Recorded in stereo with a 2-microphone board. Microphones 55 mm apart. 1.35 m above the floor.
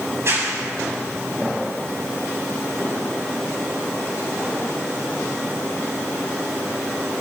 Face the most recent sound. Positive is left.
turn(degrees=-50)  # may be behind; listen again after turning